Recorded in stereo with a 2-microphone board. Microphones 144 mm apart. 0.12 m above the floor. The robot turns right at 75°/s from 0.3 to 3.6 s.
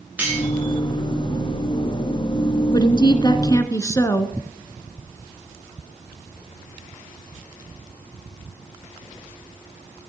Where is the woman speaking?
70° left, 1.2 m; by 4.4 s 135° left, 1.2 m.